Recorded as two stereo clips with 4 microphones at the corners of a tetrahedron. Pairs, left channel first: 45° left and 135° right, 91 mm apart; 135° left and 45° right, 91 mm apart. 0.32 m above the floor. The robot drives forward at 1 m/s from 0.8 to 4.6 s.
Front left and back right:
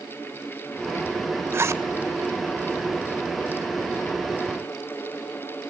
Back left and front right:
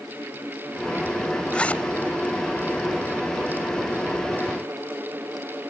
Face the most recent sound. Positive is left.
turn(degrees=-175)